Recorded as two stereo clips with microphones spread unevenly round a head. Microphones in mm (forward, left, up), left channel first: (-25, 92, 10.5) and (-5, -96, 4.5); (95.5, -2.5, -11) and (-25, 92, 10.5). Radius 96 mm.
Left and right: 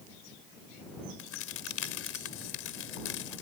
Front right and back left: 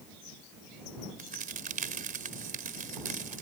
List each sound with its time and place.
1.2 s a crack: 110° left